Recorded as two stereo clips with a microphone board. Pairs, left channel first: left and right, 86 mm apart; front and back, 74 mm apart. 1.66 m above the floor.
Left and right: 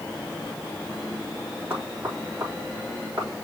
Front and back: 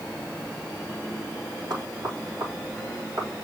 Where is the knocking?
155° right, 4 m.